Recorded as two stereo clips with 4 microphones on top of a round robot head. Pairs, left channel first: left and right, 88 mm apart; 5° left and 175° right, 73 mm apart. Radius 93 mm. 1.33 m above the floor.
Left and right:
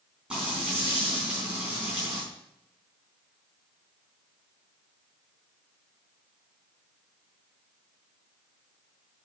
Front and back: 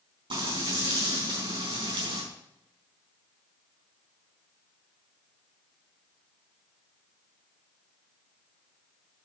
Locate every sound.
0.3 s frying: 170° right, 4 m